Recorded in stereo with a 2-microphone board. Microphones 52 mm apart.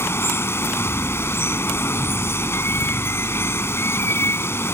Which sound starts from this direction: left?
Running water, at 0.0 s.